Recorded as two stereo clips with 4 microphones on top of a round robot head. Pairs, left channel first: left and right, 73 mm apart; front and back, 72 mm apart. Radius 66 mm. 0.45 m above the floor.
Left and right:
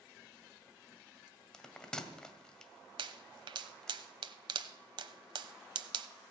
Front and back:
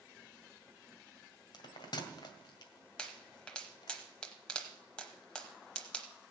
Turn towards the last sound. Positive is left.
turn(degrees=-80)